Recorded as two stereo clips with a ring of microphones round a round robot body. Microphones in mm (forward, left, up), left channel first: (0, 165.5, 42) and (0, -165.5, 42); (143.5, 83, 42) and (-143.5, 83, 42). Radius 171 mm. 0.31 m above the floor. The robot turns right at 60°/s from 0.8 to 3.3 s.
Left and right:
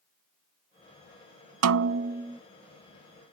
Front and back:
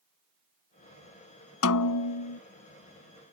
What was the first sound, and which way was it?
A snare drum, 45° right.